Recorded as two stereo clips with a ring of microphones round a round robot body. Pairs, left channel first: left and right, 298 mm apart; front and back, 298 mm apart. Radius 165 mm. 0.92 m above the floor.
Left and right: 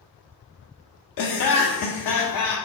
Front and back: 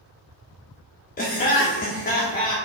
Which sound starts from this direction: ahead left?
Laughter, at 1.2 s.